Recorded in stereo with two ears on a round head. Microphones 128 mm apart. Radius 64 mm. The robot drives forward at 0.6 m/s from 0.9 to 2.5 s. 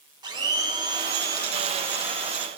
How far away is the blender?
About 1.0 m.